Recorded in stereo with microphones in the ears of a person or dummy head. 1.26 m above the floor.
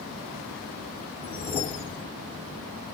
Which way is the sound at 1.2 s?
25° left (ahead or behind).